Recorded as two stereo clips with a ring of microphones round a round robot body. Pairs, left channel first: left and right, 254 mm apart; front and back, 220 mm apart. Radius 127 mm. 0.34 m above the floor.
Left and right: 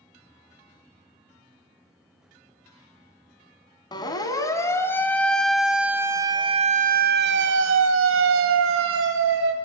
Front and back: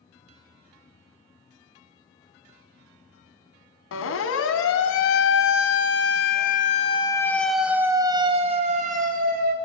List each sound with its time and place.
3.9 s a siren: 15° left, 2.5 m; by 9.5 s 130° right, 2.5 m